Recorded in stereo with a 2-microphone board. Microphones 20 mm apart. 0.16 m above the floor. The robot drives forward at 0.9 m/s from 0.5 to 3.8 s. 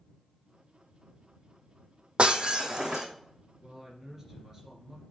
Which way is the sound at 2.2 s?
55° right (ahead or behind).